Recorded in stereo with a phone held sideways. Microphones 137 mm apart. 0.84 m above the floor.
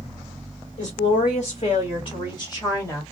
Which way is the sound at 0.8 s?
70° left (ahead or behind).